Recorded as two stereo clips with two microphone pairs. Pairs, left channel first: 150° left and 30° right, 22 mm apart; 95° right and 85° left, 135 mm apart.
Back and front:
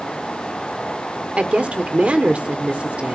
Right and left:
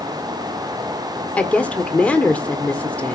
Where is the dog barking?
I don't hear a dog barking.